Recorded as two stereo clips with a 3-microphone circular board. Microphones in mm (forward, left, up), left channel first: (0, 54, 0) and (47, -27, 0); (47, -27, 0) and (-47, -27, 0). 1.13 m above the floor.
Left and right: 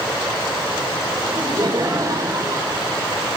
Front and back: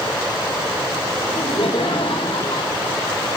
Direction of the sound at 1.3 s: 20° right.